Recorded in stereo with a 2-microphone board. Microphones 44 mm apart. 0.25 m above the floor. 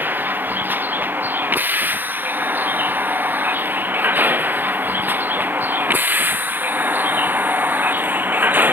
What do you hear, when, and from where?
0.0 s a vehicle: 50° right (ahead or behind); by 8.7 s 45° right (ahead or behind)